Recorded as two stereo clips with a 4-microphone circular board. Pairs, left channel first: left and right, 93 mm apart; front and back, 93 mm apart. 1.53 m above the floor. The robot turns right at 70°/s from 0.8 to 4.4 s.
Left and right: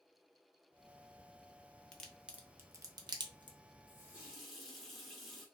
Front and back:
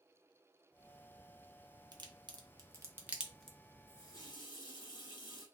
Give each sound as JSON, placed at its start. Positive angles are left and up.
{"t": 1.9, "sound": "a crack", "azimuth_deg": 165, "distance_m": 0.7}
{"t": 3.9, "sound": "a running tap", "azimuth_deg": -40, "distance_m": 1.1}